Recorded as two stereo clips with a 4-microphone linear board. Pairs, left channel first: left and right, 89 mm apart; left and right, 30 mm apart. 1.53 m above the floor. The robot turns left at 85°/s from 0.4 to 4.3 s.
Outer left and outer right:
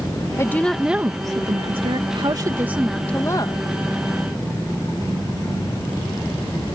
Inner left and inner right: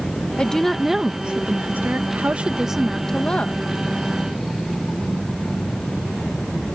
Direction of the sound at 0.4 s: 35° left.